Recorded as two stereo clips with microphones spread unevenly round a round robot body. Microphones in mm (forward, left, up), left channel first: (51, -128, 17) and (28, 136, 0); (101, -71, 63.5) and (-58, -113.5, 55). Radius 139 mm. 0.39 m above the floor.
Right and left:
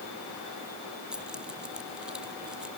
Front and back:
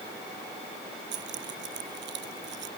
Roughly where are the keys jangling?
Behind.